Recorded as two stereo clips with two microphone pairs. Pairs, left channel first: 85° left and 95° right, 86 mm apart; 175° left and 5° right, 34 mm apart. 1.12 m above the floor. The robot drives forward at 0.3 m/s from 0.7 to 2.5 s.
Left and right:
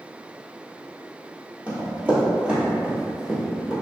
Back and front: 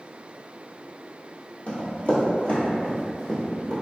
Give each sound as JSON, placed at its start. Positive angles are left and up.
{"t": 1.7, "sound": "running footsteps", "azimuth_deg": -160, "distance_m": 1.6}